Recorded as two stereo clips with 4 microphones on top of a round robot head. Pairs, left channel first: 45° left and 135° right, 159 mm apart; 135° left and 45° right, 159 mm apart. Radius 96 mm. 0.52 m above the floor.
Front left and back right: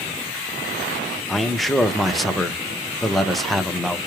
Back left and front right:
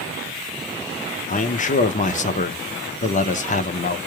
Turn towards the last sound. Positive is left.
turn(degrees=135)